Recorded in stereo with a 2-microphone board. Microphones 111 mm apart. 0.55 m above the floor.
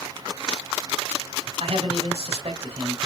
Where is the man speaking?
65° right (ahead or behind), 2.5 m.